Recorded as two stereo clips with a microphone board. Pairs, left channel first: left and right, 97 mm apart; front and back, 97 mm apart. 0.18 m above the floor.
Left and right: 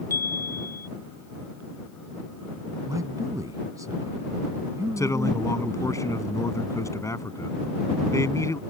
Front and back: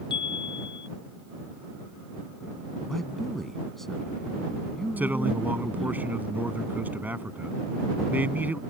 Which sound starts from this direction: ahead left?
A chime, at 0.1 s.